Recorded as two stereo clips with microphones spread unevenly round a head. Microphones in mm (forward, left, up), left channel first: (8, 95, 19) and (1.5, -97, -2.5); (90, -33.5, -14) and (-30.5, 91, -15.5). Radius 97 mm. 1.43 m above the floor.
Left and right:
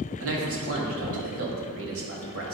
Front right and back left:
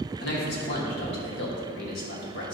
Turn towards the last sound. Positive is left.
turn(degrees=-80)